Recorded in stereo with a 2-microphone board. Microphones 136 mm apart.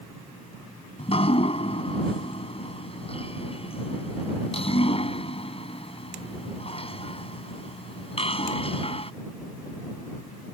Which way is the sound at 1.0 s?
45° left (ahead or behind).